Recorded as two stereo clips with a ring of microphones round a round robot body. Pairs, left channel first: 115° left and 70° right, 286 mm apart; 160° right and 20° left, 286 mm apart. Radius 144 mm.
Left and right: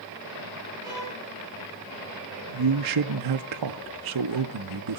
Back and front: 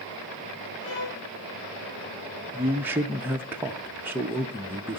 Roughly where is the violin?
Behind right.